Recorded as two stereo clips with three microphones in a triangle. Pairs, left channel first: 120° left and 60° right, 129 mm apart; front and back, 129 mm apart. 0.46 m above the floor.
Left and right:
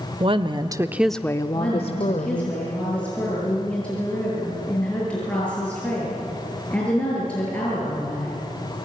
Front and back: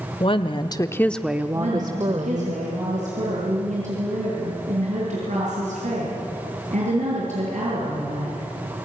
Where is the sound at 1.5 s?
160° right, 8 m.